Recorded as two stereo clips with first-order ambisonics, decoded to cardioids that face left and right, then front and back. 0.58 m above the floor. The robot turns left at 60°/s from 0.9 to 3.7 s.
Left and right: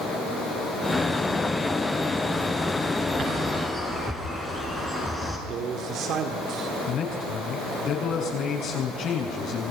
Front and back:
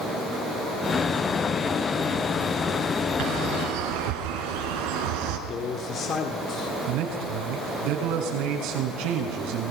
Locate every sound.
3.2 s a bird: 150° right, 4.5 m; by 5.4 s straight behind, 4.5 m
5.5 s a man speaking: 50° right, 2.0 m
6.9 s a man speaking: 145° left, 6 m